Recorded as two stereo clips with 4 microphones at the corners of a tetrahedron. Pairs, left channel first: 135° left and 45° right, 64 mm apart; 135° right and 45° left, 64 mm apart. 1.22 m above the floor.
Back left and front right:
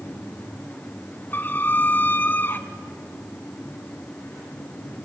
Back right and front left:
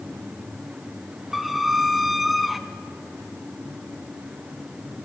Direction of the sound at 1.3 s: 125° left.